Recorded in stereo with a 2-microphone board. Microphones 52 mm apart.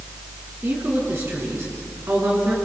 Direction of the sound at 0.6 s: 50° right (ahead or behind).